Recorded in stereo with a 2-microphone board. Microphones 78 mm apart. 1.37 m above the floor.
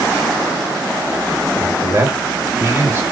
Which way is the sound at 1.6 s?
35° right (ahead or behind).